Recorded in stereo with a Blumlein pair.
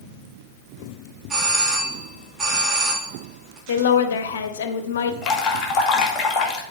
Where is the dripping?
25° left, 2 m.